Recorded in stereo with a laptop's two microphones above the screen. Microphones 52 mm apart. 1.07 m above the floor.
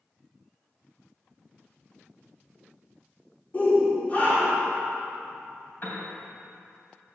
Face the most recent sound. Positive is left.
turn(degrees=40)  # may be behind; listen again after turning